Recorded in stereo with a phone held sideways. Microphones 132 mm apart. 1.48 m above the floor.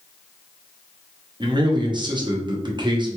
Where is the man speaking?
35° right (ahead or behind), 0.7 m.